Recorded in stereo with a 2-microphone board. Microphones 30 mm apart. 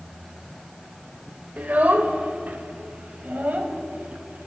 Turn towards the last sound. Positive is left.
turn(degrees=-70)  # may be behind; listen again after turning